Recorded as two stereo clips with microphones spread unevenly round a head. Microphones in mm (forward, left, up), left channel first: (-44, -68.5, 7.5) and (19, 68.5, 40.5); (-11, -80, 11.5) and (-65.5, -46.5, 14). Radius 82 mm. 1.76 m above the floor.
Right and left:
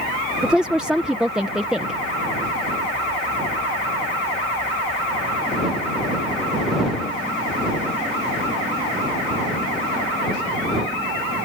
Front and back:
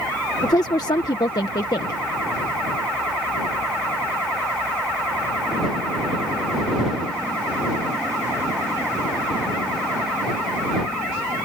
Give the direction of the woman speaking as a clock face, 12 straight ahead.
12 o'clock.